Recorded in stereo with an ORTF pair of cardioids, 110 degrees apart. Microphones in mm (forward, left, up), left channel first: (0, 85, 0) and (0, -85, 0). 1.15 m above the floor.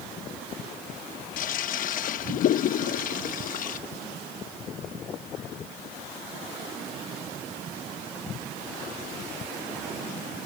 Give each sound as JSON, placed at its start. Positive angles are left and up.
{"t": 1.4, "sound": "a toilet flushing", "azimuth_deg": 55}